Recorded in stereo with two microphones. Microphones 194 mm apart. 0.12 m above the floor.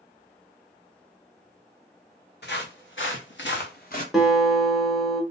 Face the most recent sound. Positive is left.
turn(degrees=0)  # may be behind; listen again after turning